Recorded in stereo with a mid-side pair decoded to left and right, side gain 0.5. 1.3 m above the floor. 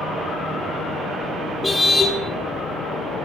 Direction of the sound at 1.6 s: 15° left.